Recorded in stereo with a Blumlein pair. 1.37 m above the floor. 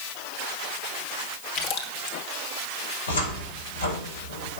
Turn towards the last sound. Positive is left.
turn(degrees=70)